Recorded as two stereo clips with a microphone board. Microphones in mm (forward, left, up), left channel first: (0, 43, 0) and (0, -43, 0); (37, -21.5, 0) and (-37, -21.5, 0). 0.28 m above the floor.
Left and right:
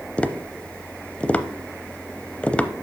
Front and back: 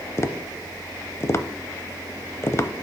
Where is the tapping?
20° left, 0.6 m.